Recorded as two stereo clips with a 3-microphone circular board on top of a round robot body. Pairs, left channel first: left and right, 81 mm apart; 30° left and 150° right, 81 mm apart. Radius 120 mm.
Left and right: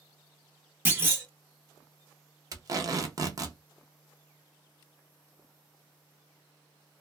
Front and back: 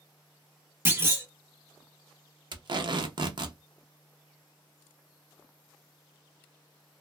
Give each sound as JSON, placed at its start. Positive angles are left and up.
{"t": 0.8, "sound": "a clunk", "azimuth_deg": -125, "distance_m": 1.2}
{"t": 2.5, "sound": "tape being pulled", "azimuth_deg": -130, "distance_m": 0.7}